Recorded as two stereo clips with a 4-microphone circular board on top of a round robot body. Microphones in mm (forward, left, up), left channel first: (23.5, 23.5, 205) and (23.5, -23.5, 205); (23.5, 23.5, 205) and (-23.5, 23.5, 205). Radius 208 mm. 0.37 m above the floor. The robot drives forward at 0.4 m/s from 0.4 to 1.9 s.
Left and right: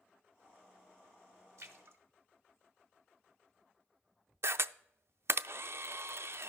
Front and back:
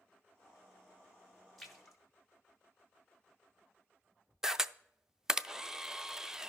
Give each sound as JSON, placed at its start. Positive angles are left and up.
{"t": 1.6, "sound": "a splash", "azimuth_deg": -85, "distance_m": 1.4}
{"t": 4.4, "sound": "a camera shutter", "azimuth_deg": -100, "distance_m": 0.5}